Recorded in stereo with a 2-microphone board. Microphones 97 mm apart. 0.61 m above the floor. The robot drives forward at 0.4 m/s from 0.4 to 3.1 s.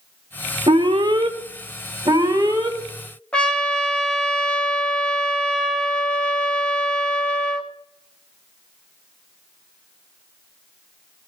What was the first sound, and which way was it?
An alarm, 60° right (ahead or behind).